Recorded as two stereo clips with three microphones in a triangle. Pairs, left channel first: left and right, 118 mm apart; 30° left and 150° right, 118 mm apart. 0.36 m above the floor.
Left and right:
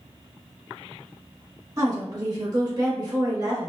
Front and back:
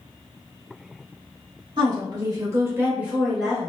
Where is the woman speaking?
135° right, 1.2 m; by 3.7 s 50° right, 1.1 m.